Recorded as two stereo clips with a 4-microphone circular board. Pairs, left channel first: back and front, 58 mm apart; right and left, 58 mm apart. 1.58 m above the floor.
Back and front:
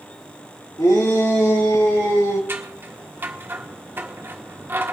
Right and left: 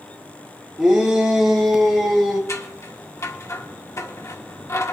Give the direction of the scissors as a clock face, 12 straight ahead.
2 o'clock.